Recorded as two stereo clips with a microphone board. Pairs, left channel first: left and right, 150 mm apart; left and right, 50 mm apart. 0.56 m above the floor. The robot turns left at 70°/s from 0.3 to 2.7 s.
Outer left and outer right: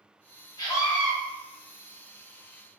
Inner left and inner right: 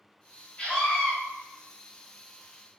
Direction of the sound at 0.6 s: 45° left.